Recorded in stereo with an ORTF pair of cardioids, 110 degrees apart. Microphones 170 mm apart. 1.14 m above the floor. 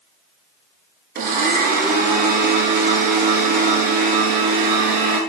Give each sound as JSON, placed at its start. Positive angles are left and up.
{"t": 1.1, "sound": "a blender", "azimuth_deg": -60, "distance_m": 7.0}